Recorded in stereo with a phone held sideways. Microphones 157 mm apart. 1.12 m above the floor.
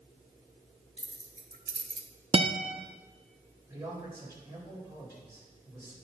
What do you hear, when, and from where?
1.0 s keys jangling: 40° right (ahead or behind), 1.4 m; by 2.1 s 55° right (ahead or behind), 0.8 m
2.3 s a guitar: 35° right (ahead or behind), 0.6 m
3.7 s a man speaking: 15° right (ahead or behind), 4 m